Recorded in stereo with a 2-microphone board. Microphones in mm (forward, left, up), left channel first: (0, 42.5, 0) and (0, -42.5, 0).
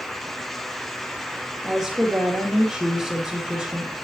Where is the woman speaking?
Centre (ahead or behind), 2.5 m.